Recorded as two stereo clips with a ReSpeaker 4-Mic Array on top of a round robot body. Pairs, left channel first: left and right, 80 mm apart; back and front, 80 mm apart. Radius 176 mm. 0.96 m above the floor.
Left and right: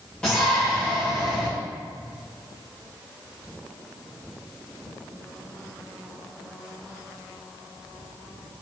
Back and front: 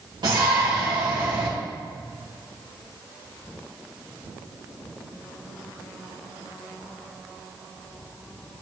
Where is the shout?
15° left, 1.8 m.